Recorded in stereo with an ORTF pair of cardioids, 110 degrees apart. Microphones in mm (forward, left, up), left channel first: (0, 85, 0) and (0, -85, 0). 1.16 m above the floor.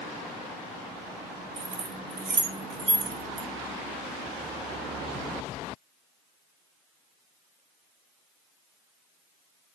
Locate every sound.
1.6 s keys jangling: 45° right, 1.8 m